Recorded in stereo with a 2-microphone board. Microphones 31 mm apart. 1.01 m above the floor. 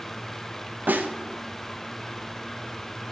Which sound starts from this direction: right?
A snare drum, at 0.9 s.